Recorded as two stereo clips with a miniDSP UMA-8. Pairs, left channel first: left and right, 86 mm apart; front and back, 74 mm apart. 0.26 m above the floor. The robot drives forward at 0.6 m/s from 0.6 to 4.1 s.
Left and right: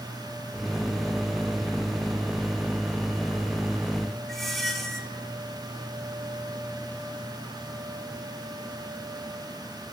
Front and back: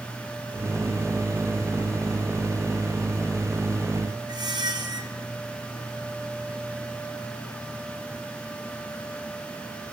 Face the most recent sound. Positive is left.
turn(degrees=180)